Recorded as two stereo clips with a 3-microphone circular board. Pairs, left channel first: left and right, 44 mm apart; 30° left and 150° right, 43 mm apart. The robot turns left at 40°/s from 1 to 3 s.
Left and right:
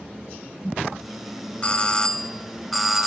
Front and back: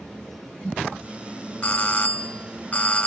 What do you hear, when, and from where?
1.6 s a doorbell: 60° left, 0.8 m; by 3.1 s 5° left, 0.8 m